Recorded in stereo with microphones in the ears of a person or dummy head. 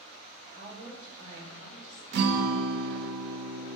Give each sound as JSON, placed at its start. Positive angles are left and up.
{"t": 0.5, "sound": "a woman speaking", "side_deg": -35, "distance_m": 3.0}
{"t": 2.1, "sound": "a guitar", "side_deg": -65, "distance_m": 1.0}